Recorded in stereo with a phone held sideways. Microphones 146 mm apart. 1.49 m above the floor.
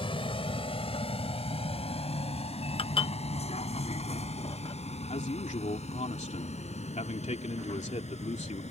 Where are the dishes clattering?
40° left (ahead or behind).